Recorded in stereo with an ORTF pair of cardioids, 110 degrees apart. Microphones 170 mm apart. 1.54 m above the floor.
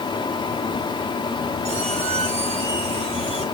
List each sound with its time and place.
0.0 s a fan: 25° left, 0.9 m
1.6 s a squeak: 45° right, 4 m